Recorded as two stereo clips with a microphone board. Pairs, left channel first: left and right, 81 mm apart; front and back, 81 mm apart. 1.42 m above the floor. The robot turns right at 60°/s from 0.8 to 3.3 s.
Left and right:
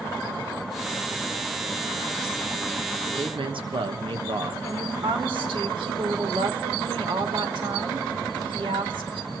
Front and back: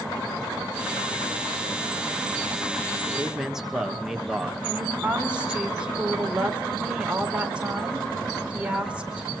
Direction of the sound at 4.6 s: 105° right.